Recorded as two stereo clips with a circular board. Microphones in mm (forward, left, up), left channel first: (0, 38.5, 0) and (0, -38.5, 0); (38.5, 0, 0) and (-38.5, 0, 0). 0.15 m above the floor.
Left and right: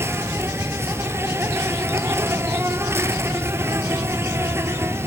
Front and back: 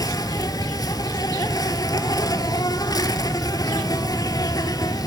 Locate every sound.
0.0 s an insect: 35° right, 0.9 m